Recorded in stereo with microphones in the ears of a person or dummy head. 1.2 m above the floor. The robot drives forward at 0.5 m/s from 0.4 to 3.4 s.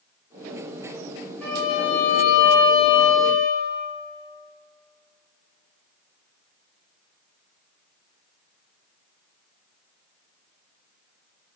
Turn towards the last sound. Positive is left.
turn(degrees=10)  # may be behind; listen again after turning